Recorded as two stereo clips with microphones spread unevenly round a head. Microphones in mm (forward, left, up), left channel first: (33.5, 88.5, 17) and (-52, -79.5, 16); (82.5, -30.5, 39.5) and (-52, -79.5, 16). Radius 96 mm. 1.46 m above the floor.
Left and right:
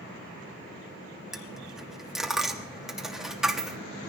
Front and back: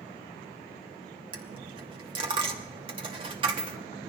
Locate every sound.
1.3 s a dropped coin: 160° left, 0.9 m